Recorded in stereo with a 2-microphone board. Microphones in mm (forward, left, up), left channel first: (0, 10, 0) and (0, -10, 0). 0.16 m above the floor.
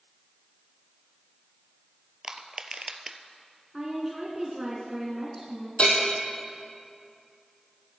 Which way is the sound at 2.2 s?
40° right (ahead or behind).